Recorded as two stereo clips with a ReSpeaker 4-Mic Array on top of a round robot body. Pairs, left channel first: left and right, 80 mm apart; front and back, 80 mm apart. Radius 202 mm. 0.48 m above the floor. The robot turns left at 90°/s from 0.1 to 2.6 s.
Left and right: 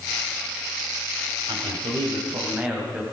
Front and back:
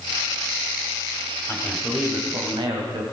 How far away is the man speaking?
About 4.5 m.